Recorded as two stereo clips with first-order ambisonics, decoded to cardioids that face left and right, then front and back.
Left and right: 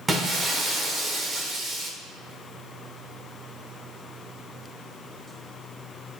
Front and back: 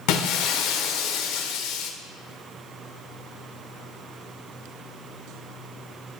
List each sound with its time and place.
0.1 s breaking glass: 15° right, 0.7 m